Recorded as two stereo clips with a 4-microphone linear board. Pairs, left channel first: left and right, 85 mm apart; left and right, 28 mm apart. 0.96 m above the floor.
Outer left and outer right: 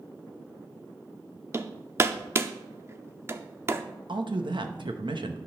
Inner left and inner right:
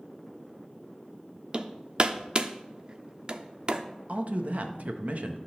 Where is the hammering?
30° right (ahead or behind), 0.5 m.